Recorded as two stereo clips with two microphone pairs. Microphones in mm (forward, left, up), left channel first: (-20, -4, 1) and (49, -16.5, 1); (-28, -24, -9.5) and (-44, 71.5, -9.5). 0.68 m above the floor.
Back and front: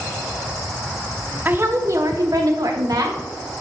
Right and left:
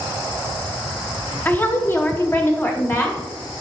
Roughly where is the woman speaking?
Ahead right.